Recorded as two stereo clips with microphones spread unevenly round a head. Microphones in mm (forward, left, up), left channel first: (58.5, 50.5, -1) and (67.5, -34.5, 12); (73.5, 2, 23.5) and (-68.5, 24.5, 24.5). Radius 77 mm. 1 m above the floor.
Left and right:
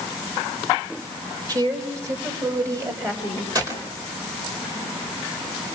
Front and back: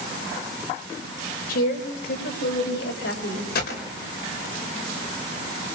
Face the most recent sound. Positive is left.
turn(degrees=-40)